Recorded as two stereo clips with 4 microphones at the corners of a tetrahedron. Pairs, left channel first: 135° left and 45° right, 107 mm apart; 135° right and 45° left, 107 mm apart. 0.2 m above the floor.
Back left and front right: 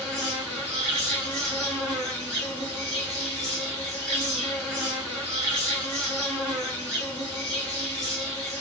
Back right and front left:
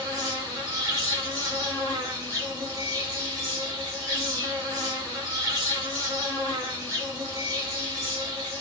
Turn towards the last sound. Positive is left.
turn(degrees=55)